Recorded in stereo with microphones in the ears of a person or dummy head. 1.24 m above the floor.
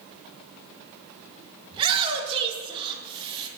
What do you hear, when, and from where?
1.7 s a shout: 25° right (ahead or behind), 1.3 m